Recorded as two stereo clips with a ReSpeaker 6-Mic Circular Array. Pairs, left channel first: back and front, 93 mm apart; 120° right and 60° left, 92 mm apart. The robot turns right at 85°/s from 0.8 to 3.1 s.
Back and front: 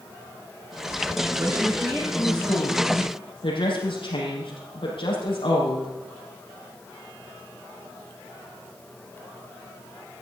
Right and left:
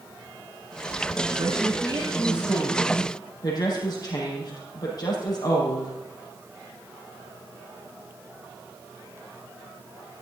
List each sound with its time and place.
1.4 s a woman speaking: 55° left, 5.5 m; by 5.9 s 160° right, 5.5 m